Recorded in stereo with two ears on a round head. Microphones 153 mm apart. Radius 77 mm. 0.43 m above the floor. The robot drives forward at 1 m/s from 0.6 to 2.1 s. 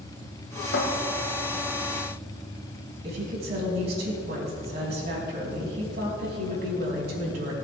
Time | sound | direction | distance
0.7 | a cupboard door | 70° left (ahead or behind) | 1.5 m
3.0 | a woman speaking | 65° right (ahead or behind) | 4 m